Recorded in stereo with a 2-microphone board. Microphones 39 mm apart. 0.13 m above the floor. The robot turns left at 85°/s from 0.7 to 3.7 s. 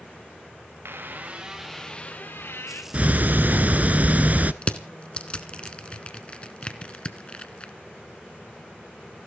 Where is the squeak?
105° right, 2.5 m; by 2.8 s 85° left, 2.5 m.